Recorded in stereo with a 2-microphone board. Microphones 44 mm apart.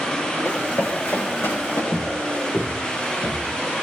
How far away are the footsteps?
About 3.5 m.